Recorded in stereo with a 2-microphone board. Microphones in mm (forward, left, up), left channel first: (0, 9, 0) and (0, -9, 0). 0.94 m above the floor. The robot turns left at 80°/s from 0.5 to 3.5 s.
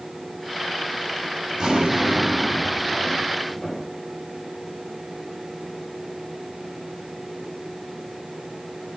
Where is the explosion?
55° right, 2 m; by 3.9 s 150° left, 2 m.